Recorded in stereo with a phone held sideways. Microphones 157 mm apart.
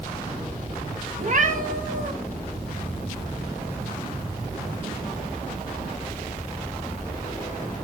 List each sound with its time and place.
1.2 s a cat meowing: 55° right (ahead or behind), 1.5 m